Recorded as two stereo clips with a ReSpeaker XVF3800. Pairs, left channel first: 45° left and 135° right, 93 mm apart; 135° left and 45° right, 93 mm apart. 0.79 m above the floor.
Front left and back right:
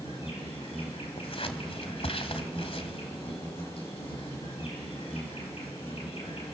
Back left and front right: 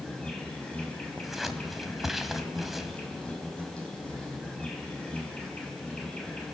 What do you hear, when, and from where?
0.0 s an insect: 55° left, 5.5 m
1.2 s scissors: 40° left, 1.9 m